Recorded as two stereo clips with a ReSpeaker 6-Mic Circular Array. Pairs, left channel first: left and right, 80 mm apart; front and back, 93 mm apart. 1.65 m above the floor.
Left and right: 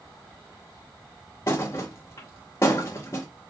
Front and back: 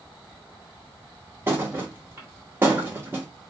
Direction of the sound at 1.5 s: 120° left.